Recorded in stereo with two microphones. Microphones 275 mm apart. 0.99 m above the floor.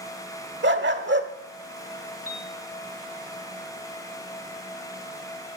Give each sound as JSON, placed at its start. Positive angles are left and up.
{"t": 0.6, "sound": "a dog barking", "side_deg": -40, "distance_m": 1.1}
{"t": 2.3, "sound": "a piano", "side_deg": 60, "distance_m": 1.6}